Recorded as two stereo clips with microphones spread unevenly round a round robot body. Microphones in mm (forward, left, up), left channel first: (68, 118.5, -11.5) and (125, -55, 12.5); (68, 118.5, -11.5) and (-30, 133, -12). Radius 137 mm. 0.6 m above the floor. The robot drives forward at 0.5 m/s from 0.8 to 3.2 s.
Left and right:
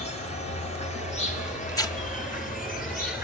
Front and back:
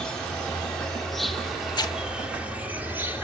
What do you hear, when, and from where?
0.0 s an insect: 75° left, 2.5 m; by 3.2 s 110° left, 2.5 m
1.7 s tearing paper: 40° left, 1.3 m; by 2.0 s 45° left, 1.2 m